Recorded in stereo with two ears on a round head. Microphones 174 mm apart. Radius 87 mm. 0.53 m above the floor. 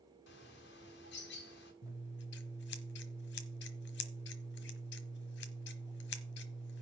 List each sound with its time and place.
0.3 s a bird: 60° left (ahead or behind), 2.5 m
1.8 s scissors: 60° left (ahead or behind), 1.2 m